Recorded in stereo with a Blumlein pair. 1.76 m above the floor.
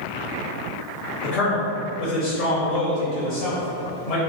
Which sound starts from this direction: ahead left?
A man speaking, at 1.2 s.